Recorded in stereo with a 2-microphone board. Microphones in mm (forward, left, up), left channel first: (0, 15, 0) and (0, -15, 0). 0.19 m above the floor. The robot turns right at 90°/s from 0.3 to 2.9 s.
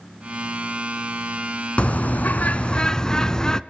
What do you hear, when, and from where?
1.8 s a bird: 55° left, 0.7 m; by 3.6 s 155° left, 0.7 m